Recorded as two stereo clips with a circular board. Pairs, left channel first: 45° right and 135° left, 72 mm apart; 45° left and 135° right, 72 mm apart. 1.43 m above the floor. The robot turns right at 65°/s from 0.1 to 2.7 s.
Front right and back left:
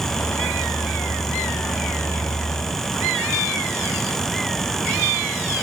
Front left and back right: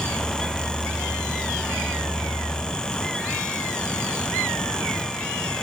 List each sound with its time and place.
Only background noise.